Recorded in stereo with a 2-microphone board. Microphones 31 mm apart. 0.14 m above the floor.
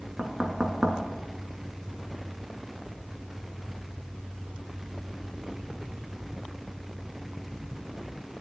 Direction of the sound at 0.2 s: 30° right (ahead or behind).